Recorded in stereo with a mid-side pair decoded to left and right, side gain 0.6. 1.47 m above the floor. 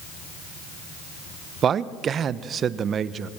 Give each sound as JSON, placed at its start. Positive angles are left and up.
{"t": 1.6, "sound": "a man speaking", "azimuth_deg": -40, "distance_m": 1.1}